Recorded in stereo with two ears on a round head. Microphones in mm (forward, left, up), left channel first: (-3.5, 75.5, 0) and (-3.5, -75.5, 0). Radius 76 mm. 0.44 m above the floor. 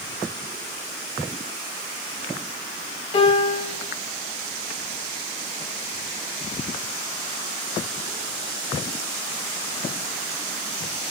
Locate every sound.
3.1 s a piano: 35° left (ahead or behind), 3 m